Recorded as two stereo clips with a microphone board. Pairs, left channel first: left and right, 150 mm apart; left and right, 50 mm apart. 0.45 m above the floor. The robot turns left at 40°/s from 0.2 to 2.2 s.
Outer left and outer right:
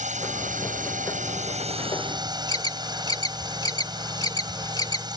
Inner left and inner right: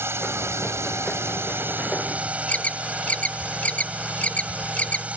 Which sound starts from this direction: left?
An alarm, at 2.5 s.